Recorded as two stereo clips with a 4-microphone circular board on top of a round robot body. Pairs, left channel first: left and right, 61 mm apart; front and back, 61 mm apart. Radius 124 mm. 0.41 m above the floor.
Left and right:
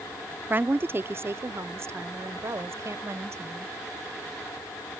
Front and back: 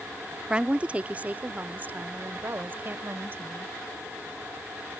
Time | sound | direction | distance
0.5 | a woman speaking | 115° right | ?